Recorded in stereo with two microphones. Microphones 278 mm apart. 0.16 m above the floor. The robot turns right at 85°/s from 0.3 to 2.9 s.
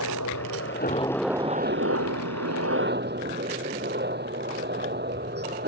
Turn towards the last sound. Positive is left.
turn(degrees=-40)